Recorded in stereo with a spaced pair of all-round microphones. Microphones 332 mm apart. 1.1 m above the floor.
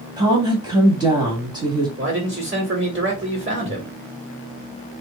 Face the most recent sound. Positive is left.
turn(degrees=-35)  # may be behind; listen again after turning